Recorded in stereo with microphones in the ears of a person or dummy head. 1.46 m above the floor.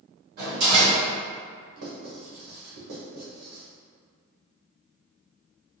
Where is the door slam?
55° right (ahead or behind), 1.9 m.